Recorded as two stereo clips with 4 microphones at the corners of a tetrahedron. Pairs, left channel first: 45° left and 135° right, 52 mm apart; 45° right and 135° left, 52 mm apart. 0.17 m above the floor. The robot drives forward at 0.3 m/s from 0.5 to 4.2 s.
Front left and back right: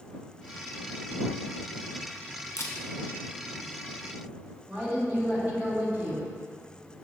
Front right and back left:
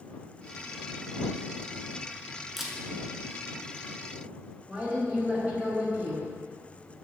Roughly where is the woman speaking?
Behind.